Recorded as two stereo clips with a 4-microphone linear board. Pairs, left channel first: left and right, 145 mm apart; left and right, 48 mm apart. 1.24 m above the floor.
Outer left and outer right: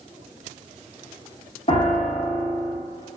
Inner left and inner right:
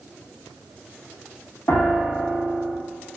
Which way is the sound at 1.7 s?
45° left (ahead or behind).